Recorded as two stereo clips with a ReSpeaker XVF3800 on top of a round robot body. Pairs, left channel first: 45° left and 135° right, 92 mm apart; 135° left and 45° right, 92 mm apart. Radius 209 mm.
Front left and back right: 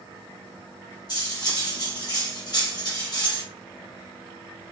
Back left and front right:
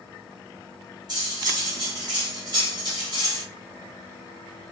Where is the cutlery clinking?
Straight ahead, 1.6 m.